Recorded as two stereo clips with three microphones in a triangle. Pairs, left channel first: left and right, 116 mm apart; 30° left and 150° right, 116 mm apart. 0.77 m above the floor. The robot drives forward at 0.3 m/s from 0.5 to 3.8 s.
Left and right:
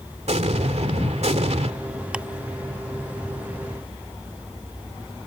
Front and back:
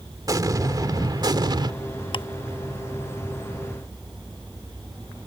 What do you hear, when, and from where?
0.3 s an explosion: 95° right; by 1.7 s 100° right
2.1 s ticking: 10° right